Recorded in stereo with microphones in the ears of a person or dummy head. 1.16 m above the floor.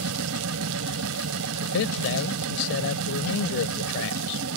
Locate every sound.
0.0 s a machine running: 90° right
1.6 s a man speaking: 65° left (ahead or behind)